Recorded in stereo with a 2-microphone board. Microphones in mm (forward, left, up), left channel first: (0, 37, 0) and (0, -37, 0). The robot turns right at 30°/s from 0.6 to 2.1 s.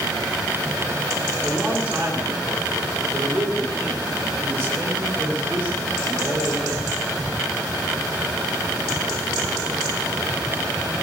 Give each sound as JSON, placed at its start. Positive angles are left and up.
{"t": 1.4, "sound": "a man speaking", "side_deg": -10, "distance_m": 9.0}